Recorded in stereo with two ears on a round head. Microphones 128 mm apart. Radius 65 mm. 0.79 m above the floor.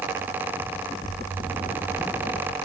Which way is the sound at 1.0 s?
70° right (ahead or behind).